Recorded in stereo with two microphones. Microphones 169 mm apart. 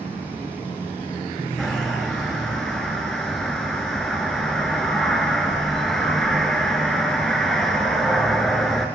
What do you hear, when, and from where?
1.6 s a bird: centre (ahead or behind), 1.4 m